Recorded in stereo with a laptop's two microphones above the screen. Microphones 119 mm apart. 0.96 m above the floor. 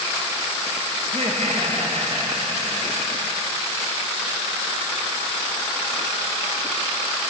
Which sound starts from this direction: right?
Laughter, at 1.0 s.